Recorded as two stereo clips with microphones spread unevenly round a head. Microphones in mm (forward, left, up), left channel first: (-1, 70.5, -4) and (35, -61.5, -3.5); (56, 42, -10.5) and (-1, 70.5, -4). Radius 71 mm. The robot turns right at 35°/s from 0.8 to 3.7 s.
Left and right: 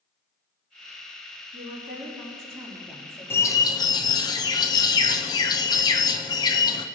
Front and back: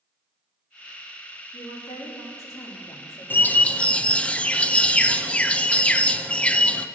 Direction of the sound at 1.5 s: 40° right.